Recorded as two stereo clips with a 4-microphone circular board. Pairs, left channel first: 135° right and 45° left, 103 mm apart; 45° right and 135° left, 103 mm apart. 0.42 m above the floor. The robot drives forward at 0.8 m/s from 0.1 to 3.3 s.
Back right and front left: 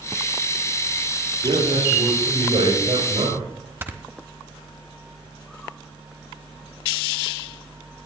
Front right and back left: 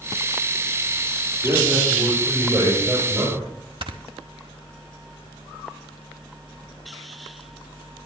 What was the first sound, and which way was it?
A man speaking, 70° left.